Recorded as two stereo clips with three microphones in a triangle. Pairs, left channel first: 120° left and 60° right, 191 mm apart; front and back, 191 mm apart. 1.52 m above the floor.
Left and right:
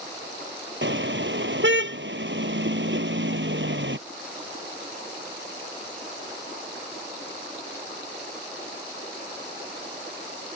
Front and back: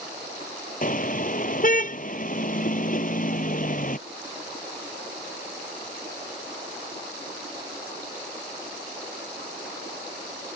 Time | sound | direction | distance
0.8 | a car horn | 45° right | ?